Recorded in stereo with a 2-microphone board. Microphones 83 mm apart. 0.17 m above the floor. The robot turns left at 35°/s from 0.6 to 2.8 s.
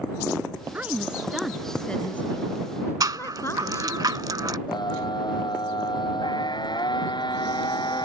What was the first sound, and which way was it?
A woman speaking, 155° right.